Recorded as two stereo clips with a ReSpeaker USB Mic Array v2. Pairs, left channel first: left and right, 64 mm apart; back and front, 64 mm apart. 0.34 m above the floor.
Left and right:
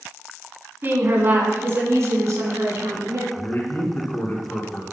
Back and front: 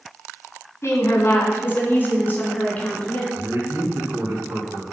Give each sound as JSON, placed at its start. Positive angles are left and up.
{"t": 0.8, "sound": "a woman speaking", "azimuth_deg": -140, "distance_m": 3.0}
{"t": 3.3, "sound": "a man speaking", "azimuth_deg": 40, "distance_m": 4.0}